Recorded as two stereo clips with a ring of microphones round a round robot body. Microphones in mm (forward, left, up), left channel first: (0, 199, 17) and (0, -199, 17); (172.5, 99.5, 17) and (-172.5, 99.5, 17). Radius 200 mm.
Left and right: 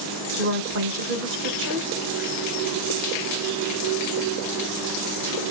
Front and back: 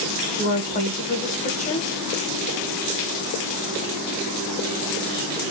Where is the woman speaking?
55° right, 1.0 m.